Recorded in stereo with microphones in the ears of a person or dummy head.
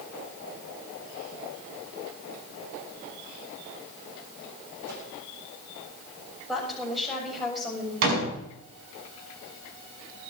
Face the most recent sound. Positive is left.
turn(degrees=-80)